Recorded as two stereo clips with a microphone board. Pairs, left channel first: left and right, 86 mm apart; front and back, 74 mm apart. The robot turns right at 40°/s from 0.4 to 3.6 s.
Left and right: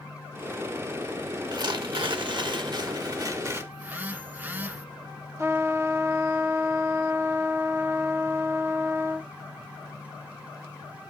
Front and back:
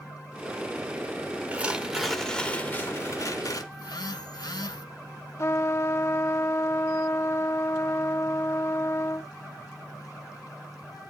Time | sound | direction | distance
1.5 | tearing paper | 115° right | 1.0 m
3.7 | a phone buzzing | 20° right | 0.6 m
5.4 | a trumpet | 40° right | 0.6 m